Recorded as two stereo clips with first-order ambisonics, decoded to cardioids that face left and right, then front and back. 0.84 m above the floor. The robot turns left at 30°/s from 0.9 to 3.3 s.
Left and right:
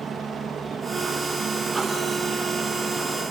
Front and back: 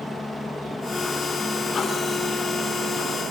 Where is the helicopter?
65° right; by 3.3 s 145° right.